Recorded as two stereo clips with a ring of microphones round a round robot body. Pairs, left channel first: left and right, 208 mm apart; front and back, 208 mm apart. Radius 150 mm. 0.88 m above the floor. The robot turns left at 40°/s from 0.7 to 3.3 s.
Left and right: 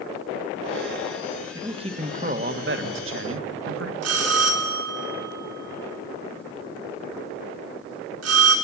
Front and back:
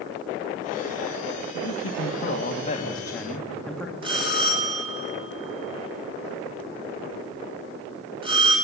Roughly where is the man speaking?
Ahead.